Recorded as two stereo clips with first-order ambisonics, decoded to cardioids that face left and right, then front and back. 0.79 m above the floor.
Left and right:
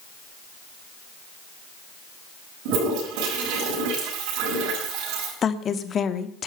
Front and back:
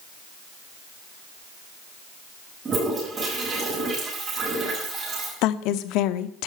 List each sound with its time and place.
2.6 s a toilet flushing: 110° right, 7.5 m
5.4 s a woman speaking: 25° left, 1.2 m